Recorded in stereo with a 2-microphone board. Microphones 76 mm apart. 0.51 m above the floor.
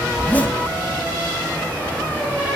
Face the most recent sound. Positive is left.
turn(degrees=20)  # may be behind; listen again after turning